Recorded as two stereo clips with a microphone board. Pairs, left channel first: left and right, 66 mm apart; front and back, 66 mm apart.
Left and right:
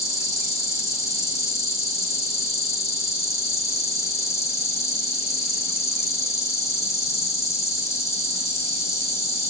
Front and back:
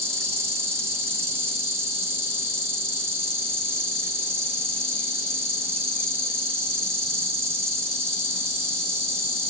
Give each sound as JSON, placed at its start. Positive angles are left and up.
{"t": 0.0, "sound": "an insect", "azimuth_deg": 130, "distance_m": 1.0}